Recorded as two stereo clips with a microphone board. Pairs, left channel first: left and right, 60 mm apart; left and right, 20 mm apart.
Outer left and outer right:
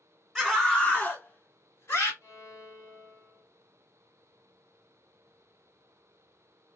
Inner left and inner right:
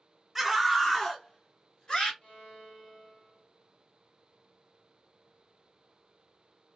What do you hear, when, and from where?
0.3 s a scream: 5° left (ahead or behind), 1.8 m; by 2.1 s 50° left (ahead or behind), 2.5 m
2.2 s a violin: 60° left (ahead or behind), 3.5 m